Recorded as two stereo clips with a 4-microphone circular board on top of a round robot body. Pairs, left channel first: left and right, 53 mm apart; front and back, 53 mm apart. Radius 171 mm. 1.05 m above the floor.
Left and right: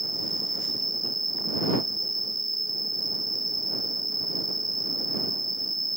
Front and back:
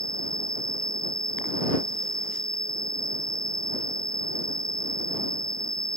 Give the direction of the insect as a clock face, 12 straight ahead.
6 o'clock.